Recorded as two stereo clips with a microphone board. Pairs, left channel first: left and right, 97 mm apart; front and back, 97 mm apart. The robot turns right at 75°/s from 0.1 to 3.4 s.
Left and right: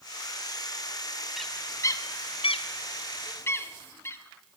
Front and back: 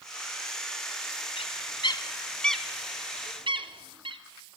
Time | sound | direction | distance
1.4 | a bird | straight ahead | 0.5 m